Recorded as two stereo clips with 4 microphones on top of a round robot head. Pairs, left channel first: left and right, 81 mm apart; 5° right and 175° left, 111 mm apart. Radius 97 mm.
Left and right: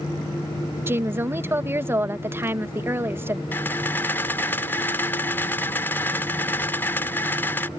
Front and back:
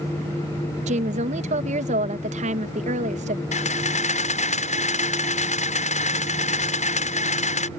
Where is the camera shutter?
15° left.